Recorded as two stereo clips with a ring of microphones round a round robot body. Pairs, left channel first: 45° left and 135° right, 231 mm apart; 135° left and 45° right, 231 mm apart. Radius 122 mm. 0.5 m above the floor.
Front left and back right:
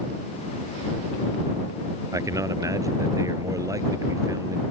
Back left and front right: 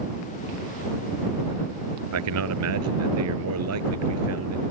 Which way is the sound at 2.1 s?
60° right.